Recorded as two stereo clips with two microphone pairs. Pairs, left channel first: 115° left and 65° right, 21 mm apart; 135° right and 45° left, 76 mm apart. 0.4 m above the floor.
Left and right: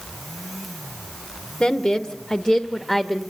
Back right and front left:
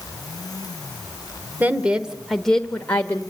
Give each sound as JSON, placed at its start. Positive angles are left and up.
{"t": 1.6, "sound": "a woman speaking", "azimuth_deg": 95, "distance_m": 0.9}